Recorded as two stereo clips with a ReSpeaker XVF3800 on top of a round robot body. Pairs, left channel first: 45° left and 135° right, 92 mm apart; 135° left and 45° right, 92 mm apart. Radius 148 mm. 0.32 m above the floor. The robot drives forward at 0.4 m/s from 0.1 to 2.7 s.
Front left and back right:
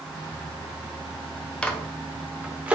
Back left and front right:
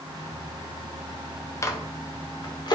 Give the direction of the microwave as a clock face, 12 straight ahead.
8 o'clock.